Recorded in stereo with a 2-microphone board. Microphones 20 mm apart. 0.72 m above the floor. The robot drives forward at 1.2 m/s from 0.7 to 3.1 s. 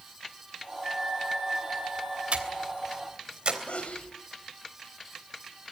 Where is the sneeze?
75° left (ahead or behind), 3.5 m.